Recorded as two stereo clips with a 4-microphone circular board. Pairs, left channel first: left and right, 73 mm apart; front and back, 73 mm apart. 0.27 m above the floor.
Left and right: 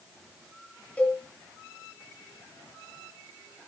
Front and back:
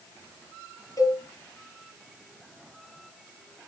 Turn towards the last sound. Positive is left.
turn(degrees=25)